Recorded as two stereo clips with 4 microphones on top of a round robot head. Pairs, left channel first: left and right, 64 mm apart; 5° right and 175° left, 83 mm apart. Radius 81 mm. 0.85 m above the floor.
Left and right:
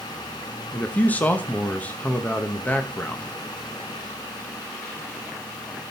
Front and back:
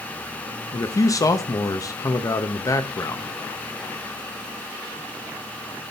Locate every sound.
0.7 s a man speaking: 30° left, 1.1 m